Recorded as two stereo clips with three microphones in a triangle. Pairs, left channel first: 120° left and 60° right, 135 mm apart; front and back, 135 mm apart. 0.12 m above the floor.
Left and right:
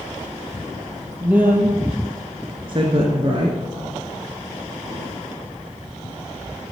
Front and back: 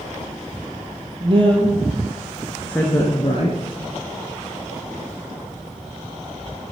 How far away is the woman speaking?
About 3 m.